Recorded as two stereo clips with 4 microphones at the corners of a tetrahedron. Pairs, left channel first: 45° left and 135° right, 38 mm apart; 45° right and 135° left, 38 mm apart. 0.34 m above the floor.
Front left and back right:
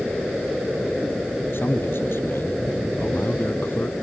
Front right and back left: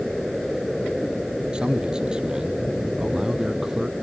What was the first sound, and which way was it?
A man speaking, 65° left.